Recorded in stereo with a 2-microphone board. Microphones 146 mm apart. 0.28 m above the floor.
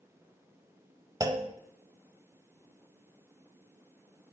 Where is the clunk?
25° right (ahead or behind), 0.7 m.